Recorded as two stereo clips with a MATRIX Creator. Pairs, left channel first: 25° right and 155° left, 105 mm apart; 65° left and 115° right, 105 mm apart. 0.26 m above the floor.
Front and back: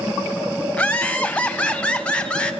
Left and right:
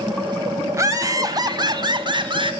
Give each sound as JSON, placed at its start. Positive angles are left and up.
{"t": 0.7, "sound": "laughter", "azimuth_deg": -90, "distance_m": 1.4}